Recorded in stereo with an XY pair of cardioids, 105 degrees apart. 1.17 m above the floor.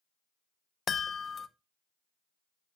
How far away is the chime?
About 0.6 m.